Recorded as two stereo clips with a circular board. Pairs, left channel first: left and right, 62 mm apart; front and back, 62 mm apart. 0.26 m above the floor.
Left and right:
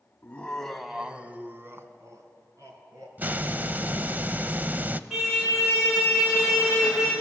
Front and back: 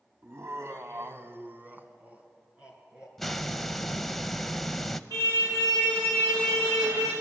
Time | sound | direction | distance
0.2 | laughter | 145° left | 1.8 m
3.2 | a hiss | 85° right | 0.6 m
5.1 | a car horn | straight behind | 7.5 m